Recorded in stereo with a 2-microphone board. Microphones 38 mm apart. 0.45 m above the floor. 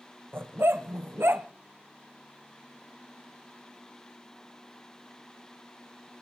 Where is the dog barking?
85° right, 0.8 m.